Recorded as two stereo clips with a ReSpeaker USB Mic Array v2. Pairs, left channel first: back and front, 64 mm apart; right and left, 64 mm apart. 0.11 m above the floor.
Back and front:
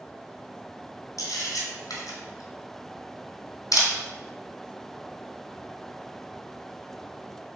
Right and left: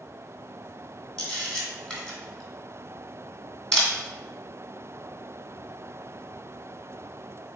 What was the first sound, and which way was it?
A camera shutter, 160° right.